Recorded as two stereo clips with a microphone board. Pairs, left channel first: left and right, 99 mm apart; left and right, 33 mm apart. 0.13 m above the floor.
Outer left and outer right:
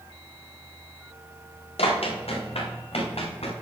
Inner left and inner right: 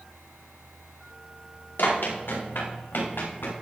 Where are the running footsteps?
80° left, 6 m.